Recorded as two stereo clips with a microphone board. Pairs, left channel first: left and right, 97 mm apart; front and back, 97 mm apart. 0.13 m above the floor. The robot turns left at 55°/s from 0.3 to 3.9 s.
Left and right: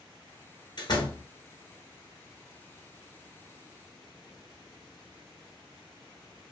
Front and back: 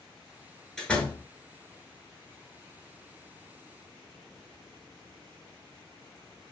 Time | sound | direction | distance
0.8 | a door slam | 85° left | 1.1 m